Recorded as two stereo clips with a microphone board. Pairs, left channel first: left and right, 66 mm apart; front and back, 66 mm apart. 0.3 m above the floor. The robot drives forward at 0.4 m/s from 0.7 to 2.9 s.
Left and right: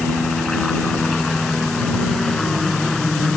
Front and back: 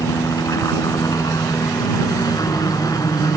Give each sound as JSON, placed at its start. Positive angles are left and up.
{"t": 0.0, "sound": "a helicopter", "azimuth_deg": 10}